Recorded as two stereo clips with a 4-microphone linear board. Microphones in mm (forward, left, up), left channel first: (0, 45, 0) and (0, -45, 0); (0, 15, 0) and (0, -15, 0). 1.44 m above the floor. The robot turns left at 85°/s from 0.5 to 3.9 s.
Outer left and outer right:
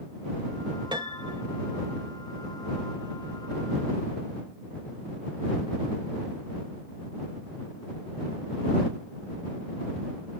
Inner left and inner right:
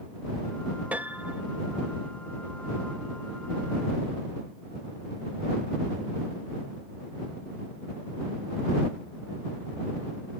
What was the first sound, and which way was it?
A piano, 60° right.